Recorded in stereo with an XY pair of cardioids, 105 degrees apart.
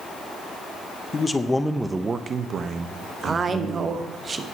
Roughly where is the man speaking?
Ahead left.